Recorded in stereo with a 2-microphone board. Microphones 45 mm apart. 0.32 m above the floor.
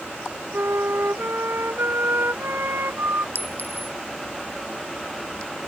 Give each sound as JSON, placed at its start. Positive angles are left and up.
{"t": 0.5, "sound": "a flute", "side_deg": -65}
{"t": 3.4, "sound": "a clink", "side_deg": -55}